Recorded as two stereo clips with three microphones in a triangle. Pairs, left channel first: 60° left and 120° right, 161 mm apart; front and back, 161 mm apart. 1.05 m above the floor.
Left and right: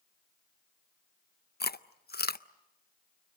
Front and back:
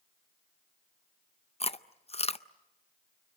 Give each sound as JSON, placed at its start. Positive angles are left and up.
{"t": 1.6, "sound": "chewing", "azimuth_deg": 55, "distance_m": 0.6}